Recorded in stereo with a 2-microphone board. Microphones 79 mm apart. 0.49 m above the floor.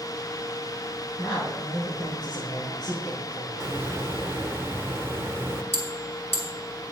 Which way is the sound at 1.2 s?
70° left (ahead or behind).